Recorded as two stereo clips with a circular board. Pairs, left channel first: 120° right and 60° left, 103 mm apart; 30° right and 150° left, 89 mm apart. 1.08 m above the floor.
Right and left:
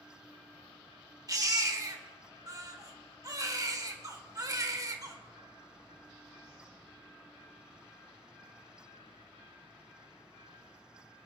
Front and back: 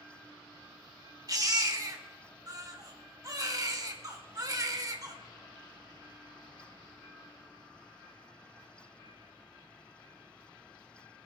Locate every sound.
1.3 s a baby crying: 110° left, 1.1 m